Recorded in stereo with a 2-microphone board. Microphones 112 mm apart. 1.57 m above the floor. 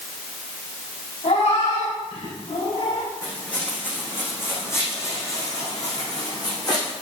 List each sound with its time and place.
1.2 s a cat meowing: 80° left, 7 m; by 3.1 s 85° left, 6 m
3.2 s footsteps: 10° left (ahead or behind), 5.5 m; by 6.9 s 40° left (ahead or behind), 6.5 m